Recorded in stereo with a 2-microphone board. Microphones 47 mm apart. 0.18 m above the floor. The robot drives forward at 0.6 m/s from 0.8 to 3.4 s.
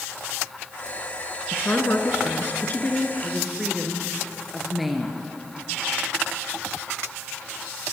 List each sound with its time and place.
1.5 s a woman speaking: 45° left (ahead or behind), 2 m; by 3.1 s 35° left (ahead or behind), 2.5 m
3.2 s a woman speaking: centre (ahead or behind), 3 m